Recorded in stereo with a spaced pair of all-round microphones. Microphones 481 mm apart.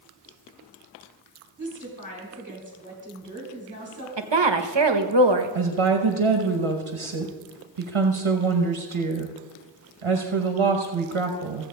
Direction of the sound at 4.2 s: 60° right (ahead or behind).